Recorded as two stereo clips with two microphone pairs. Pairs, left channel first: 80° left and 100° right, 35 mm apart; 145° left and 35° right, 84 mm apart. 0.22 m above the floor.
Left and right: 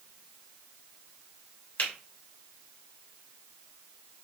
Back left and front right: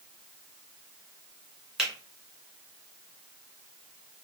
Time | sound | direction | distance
1.8 | a finger snap | 50° left | 2 m